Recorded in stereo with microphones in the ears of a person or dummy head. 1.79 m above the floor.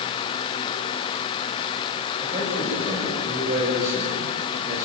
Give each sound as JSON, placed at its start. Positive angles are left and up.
{"t": 2.2, "sound": "a man speaking", "side_deg": -40, "distance_m": 8.0}